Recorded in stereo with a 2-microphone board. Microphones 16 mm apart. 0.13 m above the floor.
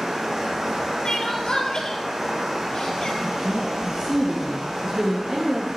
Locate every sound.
0.0 s running water: 40° right (ahead or behind), 4.5 m
1.1 s crying: 45° left (ahead or behind), 1.3 m
3.2 s a woman speaking: 35° right (ahead or behind), 1.6 m